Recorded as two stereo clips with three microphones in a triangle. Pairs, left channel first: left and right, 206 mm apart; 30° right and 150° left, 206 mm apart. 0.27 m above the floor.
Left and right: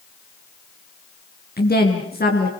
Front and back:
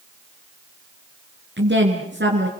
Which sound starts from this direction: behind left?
A woman speaking, at 1.6 s.